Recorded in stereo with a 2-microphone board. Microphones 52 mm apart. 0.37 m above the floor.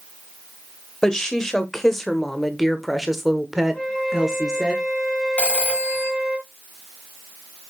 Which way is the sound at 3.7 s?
10° left (ahead or behind).